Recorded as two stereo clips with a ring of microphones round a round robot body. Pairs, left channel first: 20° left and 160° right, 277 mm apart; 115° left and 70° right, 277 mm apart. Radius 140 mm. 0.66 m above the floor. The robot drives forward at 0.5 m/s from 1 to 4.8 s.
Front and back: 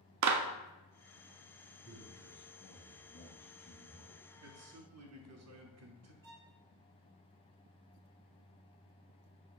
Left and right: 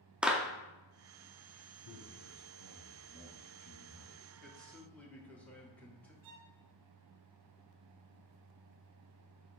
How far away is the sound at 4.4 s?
About 1.0 m.